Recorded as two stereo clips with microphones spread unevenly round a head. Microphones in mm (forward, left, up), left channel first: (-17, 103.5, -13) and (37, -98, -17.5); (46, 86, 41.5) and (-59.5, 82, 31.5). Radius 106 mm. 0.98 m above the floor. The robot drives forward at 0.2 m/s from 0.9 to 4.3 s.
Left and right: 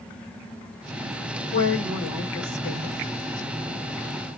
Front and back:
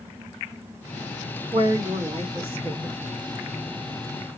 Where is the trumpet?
No trumpet in this recording.